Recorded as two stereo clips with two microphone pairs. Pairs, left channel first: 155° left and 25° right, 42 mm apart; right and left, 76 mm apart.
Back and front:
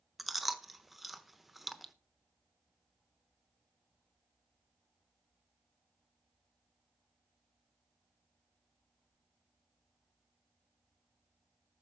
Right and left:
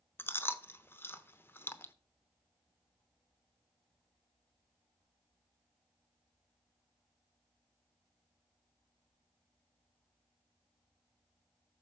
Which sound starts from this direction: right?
Chewing, at 0.2 s.